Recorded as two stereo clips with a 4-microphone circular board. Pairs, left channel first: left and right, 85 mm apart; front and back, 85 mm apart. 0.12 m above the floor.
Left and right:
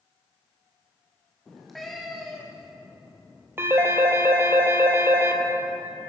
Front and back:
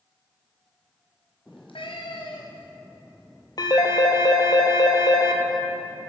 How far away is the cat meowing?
About 2.5 m.